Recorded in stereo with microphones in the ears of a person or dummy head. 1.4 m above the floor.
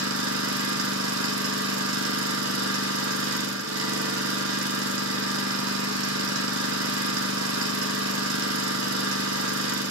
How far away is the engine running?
About 2 m.